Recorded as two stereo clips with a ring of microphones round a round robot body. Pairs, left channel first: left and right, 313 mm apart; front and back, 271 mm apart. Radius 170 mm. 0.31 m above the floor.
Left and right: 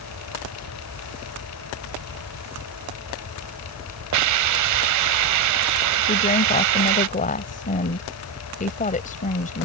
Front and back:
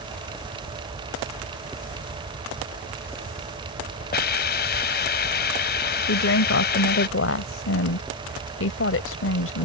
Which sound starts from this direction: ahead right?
A hiss, at 4.1 s.